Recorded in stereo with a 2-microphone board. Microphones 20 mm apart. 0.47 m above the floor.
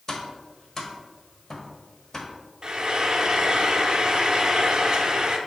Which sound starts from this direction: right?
Frying, at 2.6 s.